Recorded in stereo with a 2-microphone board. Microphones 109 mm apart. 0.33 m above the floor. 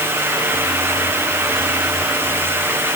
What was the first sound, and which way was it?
Only background noise.